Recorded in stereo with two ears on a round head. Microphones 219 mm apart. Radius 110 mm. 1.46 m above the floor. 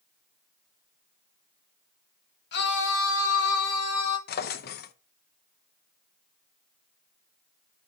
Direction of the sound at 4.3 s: 40° left (ahead or behind).